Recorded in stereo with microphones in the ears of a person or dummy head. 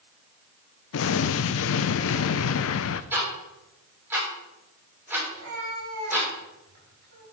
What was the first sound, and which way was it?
An explosion, 65° left (ahead or behind).